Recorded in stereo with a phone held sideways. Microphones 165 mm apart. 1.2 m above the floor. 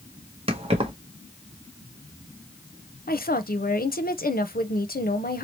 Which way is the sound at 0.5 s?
35° right (ahead or behind).